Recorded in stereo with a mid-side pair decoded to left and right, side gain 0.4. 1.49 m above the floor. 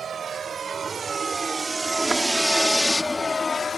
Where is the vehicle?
55° right; by 3.8 s 45° left.